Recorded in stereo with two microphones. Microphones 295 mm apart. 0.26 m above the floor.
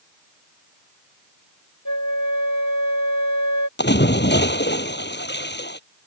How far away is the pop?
I don't hear a pop.